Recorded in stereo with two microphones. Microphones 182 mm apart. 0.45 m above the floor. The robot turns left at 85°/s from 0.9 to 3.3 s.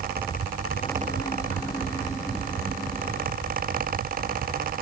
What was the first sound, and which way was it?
Only background noise.